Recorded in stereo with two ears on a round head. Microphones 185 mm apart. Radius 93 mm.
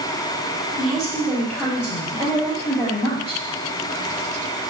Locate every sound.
0.8 s a woman speaking: 5° right (ahead or behind), 1.8 m; by 3.4 s 30° left (ahead or behind), 2.5 m